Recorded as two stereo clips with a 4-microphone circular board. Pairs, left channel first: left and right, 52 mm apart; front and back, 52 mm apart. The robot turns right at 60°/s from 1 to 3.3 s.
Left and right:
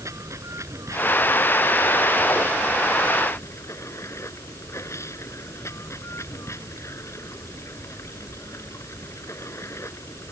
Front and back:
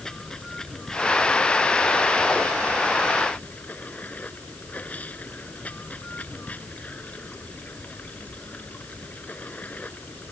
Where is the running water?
75° right; by 10.3 s 60° left.